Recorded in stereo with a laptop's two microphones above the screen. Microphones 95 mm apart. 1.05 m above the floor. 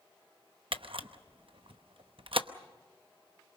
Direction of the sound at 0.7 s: 70° right (ahead or behind).